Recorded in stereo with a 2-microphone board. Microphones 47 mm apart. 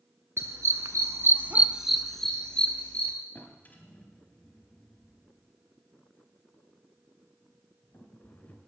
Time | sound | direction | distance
0.4 | a dog barking | 70° right (ahead or behind) | 1.2 m
3.4 | a drawer | 40° left (ahead or behind) | 2.5 m